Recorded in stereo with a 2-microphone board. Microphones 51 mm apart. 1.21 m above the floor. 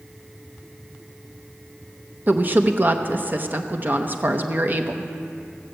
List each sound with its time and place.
2.3 s a woman speaking: 40° right (ahead or behind), 0.8 m